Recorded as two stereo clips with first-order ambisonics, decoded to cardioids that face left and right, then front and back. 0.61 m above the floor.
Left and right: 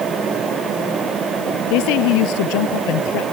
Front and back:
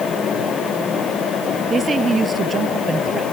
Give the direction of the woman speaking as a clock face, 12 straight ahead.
8 o'clock.